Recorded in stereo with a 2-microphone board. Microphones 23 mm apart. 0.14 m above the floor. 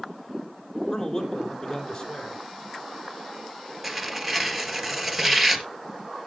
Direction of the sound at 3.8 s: 5° right (ahead or behind).